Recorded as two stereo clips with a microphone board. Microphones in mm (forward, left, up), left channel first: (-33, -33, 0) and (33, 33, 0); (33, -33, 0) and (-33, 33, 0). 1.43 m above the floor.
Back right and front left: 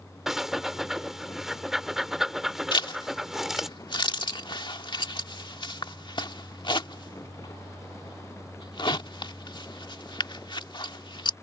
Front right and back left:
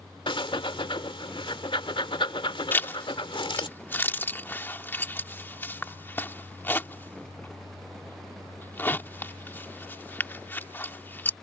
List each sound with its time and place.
0.3 s breathing: 40° right
2.7 s a zipper: 110° right